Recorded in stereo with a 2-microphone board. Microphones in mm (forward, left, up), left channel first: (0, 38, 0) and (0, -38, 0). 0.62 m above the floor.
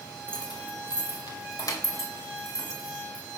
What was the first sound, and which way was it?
Keys jangling, 70° left (ahead or behind).